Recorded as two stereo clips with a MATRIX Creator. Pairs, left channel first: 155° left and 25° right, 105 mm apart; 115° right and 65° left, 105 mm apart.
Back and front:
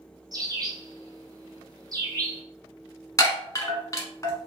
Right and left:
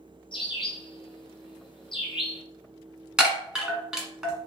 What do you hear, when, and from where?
0.3 s a bird: 75° right, 1.8 m
3.2 s a chime: 145° left, 1.3 m